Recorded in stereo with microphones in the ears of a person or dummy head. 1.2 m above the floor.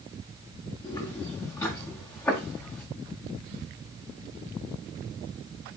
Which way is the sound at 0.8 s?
30° left (ahead or behind).